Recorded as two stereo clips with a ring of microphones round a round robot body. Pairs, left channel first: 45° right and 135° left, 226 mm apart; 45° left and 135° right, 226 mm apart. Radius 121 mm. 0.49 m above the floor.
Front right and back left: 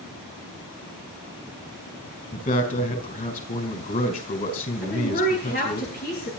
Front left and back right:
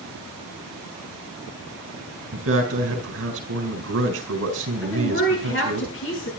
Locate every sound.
2.3 s a man speaking: 100° right, 4.5 m
4.8 s a woman speaking: 5° left, 8.5 m